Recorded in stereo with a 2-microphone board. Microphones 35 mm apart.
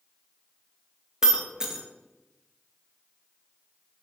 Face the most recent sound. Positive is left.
turn(degrees=-20)  # may be behind; listen again after turning